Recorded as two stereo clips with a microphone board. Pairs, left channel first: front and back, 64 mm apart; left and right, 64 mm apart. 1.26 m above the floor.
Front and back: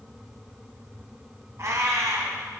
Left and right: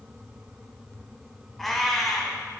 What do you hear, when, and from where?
1.6 s a cat meowing: 175° left, 1.5 m